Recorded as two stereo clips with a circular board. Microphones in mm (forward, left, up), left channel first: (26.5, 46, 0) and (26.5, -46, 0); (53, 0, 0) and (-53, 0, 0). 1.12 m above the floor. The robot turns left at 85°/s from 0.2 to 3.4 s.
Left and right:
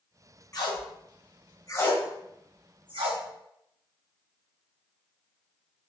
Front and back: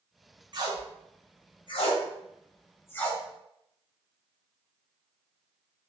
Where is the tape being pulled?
135° left, 0.6 m; by 3.2 s 90° right, 0.6 m.